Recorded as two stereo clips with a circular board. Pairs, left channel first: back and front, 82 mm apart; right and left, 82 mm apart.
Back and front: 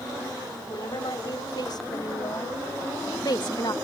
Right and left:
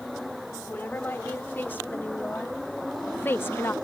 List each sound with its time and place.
0.7 s a woman speaking: 155° right; by 3.8 s 150° right